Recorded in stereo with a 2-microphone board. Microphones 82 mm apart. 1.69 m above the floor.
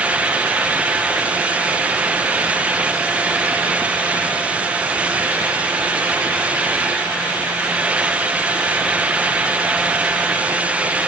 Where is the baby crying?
No baby crying in this recording.